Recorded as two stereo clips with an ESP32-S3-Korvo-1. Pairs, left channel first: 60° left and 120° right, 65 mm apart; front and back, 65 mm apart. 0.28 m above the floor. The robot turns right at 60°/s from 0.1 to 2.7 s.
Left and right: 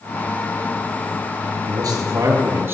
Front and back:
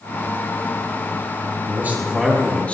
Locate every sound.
1.7 s a man speaking: 130° right, 5 m; by 2.8 s 70° right, 5 m